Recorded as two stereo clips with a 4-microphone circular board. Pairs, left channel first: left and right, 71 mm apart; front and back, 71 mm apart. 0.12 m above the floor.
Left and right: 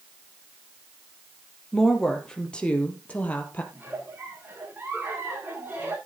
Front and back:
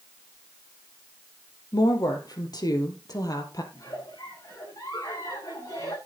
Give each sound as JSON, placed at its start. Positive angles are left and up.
{"t": 1.7, "sound": "a woman speaking", "azimuth_deg": 5, "distance_m": 3.5}
{"t": 3.7, "sound": "a giggle", "azimuth_deg": -25, "distance_m": 9.0}